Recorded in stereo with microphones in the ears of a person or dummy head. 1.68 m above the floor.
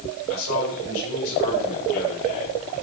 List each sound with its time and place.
0.3 s a man speaking: 85° left, 7.5 m